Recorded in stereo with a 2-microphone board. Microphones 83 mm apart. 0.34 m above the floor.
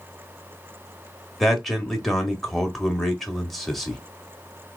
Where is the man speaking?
Centre (ahead or behind), 1.1 m.